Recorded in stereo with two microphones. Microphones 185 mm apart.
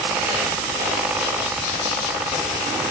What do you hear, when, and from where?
Only background noise.